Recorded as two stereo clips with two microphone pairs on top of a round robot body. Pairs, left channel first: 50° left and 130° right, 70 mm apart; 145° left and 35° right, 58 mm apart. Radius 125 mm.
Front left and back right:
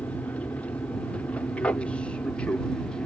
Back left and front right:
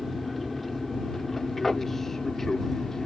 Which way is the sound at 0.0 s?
45° left.